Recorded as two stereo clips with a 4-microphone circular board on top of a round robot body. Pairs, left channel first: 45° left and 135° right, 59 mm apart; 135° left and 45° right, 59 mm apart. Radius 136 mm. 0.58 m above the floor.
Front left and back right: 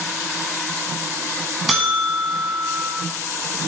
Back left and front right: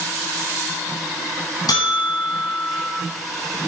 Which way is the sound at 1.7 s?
140° left.